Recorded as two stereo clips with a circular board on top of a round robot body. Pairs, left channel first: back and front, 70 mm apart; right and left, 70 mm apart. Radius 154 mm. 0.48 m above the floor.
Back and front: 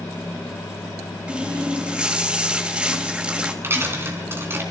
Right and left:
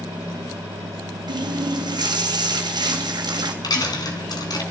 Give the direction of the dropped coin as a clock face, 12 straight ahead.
2 o'clock.